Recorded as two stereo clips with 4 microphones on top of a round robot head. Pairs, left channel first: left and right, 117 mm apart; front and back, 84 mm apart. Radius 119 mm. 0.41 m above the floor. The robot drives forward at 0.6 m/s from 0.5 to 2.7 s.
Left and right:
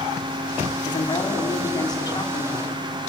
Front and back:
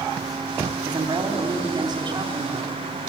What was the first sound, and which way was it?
A woman speaking, 140° left.